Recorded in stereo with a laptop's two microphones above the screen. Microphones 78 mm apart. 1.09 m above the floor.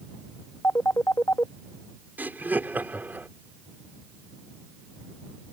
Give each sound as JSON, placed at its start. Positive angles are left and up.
{"t": 0.6, "sound": "a phone ringing", "side_deg": 35}
{"t": 2.2, "sound": "laughter", "side_deg": -25}